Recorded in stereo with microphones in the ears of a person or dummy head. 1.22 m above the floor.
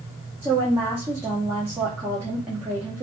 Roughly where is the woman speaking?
Centre.